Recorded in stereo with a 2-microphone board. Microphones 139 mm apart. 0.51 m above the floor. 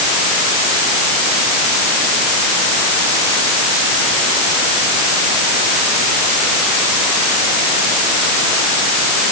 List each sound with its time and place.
Only background noise.